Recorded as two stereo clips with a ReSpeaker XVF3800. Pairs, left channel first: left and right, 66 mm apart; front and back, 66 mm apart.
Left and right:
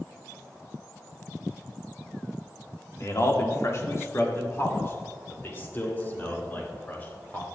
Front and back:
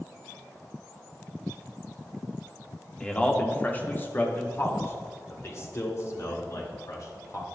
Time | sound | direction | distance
3.0 | a man speaking | 70° left | 1.6 m